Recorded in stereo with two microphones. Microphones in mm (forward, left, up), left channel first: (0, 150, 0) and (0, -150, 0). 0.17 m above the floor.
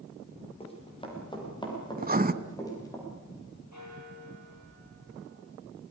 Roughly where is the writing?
Right.